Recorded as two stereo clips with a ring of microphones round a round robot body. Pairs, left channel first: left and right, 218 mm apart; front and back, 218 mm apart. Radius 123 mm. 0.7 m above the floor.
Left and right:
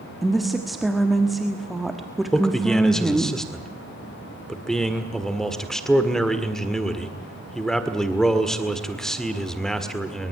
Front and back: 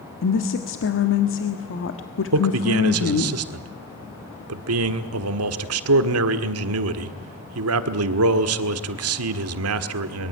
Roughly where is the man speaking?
Behind.